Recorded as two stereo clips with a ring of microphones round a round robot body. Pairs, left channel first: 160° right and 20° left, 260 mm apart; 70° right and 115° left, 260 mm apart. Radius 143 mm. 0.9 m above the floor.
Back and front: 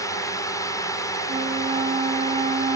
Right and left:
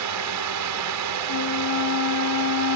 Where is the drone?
125° left.